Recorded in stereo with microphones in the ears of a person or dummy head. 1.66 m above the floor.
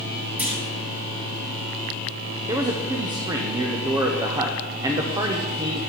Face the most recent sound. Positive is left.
turn(degrees=-20)  # may be behind; listen again after turning